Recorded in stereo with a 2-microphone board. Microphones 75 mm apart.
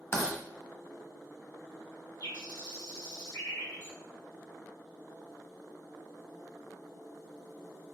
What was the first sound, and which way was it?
Writing, 40° left (ahead or behind).